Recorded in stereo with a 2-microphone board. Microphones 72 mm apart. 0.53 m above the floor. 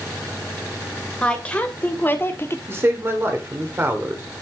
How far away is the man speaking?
About 2 m.